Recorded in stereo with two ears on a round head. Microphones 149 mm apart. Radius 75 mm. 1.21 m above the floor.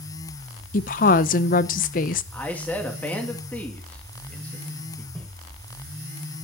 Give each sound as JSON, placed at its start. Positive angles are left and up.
{"t": 0.7, "sound": "a woman speaking", "side_deg": 50, "distance_m": 0.6}
{"t": 2.3, "sound": "a man speaking", "side_deg": 10, "distance_m": 2.0}
{"t": 5.2, "sound": "footsteps", "side_deg": 10, "distance_m": 5.5}